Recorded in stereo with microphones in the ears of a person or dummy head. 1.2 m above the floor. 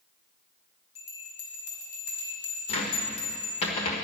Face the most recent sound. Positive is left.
turn(degrees=30)  # may be behind; listen again after turning